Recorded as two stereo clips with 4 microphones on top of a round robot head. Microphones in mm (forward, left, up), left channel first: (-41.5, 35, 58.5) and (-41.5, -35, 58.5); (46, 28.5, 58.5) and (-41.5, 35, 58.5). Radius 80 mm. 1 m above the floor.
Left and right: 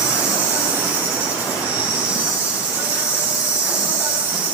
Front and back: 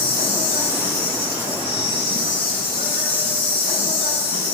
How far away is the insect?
About 5.5 m.